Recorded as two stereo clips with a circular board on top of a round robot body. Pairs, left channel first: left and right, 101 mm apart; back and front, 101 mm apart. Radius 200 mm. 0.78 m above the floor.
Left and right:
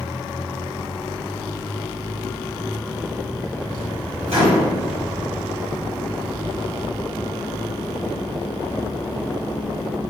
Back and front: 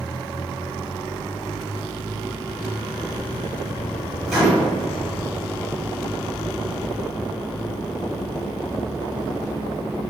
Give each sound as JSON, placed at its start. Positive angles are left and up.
{"t": 4.3, "sound": "a microwave", "azimuth_deg": -85, "distance_m": 2.0}